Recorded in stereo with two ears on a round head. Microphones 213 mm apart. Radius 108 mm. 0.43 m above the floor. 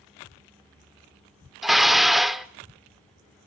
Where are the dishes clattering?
Centre (ahead or behind), 0.6 m.